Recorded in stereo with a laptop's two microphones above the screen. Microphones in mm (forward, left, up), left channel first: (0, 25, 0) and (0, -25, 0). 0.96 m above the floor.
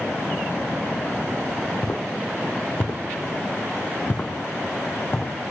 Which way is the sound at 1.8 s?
35° left (ahead or behind).